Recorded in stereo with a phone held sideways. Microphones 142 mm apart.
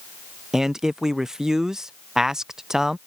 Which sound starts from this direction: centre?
A man speaking, at 0.5 s.